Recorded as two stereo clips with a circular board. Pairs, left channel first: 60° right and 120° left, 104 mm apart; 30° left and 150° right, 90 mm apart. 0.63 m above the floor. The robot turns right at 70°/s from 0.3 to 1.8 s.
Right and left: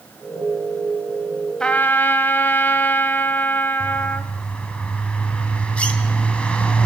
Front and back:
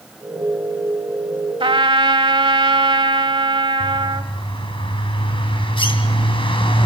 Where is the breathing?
No breathing in this recording.